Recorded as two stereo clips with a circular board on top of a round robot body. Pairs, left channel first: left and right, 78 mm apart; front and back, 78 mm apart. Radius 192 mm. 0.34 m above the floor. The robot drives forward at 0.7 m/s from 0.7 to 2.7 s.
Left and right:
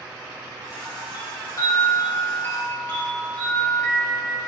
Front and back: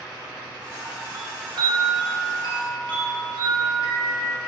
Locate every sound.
1.1 s a chime: 125° left, 0.7 m; by 4.5 s 160° left, 1.6 m